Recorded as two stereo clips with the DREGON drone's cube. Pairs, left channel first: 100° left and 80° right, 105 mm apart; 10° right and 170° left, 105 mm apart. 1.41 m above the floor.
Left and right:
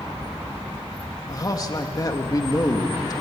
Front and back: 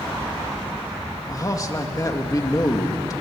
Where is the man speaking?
45° left, 2 m.